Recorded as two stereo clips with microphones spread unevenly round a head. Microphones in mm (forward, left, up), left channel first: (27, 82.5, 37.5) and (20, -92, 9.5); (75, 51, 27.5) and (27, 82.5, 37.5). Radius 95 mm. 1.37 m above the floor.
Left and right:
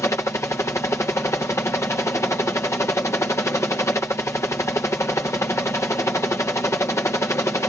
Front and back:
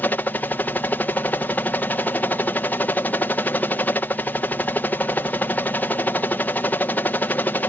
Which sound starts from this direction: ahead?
A helicopter, at 0.0 s.